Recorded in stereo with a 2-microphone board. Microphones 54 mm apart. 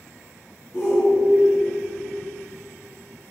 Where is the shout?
45° left (ahead or behind), 2.5 m.